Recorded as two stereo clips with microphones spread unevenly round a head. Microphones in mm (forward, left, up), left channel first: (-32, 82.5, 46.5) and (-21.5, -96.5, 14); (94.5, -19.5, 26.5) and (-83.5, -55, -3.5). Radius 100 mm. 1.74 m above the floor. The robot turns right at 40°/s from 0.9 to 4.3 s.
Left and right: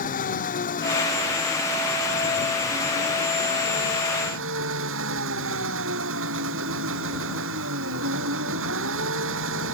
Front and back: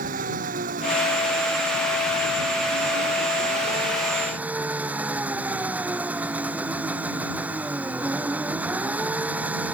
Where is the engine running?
135° left; by 9.8 s 85° right.